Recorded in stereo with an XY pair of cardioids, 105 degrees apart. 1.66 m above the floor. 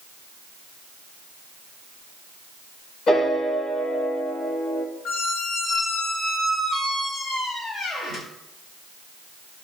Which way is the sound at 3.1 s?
65° left.